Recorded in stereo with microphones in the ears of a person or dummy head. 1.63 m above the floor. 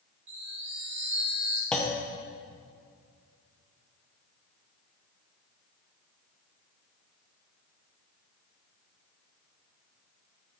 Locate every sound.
0.3 s a chime: 45° right (ahead or behind), 1.9 m
1.7 s a clunk: 5° left (ahead or behind), 0.9 m